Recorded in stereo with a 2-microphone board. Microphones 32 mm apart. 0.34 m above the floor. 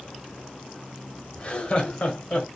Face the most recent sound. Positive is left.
turn(degrees=45)  # may be behind; listen again after turning